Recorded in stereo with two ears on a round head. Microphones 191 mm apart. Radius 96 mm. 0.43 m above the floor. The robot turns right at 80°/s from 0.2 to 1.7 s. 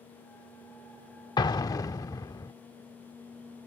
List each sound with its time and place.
1.4 s an explosion: 20° left (ahead or behind); by 2.5 s 15° left (ahead or behind)